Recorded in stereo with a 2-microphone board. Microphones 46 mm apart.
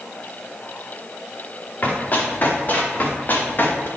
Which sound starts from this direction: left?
Running footsteps, at 1.8 s.